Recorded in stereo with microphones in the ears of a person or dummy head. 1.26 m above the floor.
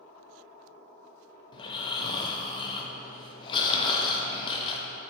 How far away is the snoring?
About 0.7 m.